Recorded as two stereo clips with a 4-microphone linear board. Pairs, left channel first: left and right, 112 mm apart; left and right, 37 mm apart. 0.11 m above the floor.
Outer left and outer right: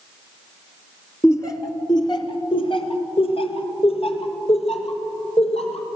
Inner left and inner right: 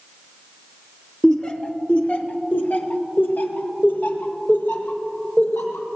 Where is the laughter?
25° left (ahead or behind), 1.8 m; by 5.9 s 65° left (ahead or behind), 4.5 m.